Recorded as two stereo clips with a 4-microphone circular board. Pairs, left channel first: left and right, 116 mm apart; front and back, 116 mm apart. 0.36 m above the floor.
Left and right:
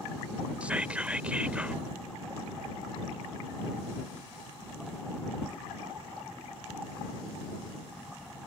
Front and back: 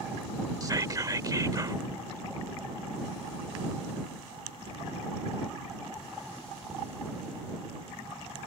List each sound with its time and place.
0.6 s whispering: 160° right